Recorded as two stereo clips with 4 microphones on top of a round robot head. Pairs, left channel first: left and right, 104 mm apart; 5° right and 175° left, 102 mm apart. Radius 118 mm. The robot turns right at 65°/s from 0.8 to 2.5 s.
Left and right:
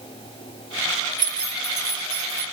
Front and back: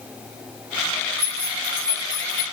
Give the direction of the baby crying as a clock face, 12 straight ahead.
No baby crying in this recording.